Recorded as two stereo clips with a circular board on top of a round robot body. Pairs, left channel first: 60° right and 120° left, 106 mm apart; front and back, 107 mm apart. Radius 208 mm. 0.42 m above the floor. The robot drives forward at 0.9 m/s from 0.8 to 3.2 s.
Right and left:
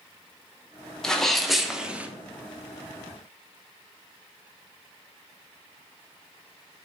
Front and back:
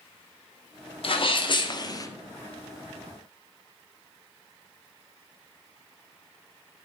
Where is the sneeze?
25° left, 2.0 m; by 2.1 s 50° left, 1.3 m.